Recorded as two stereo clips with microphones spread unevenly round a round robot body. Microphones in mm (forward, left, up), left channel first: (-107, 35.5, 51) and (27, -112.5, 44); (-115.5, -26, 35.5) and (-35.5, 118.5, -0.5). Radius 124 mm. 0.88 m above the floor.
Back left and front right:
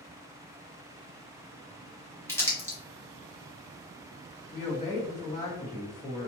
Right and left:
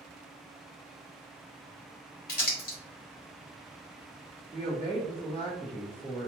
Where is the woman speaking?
175° right, 1.6 m.